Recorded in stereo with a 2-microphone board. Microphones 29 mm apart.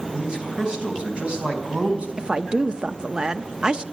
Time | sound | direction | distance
0.1 | a man speaking | 20° right (ahead or behind) | 4 m
2.2 | a woman speaking | 30° right (ahead or behind) | 0.7 m